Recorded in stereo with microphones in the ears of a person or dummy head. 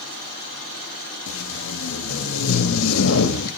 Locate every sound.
1.3 s tape being pulled: 85° left, 2 m